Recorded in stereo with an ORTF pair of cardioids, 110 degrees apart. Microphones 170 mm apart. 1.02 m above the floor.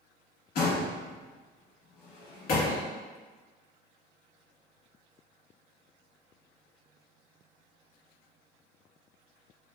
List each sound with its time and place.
0.6 s a door slam: 60° left, 1.4 m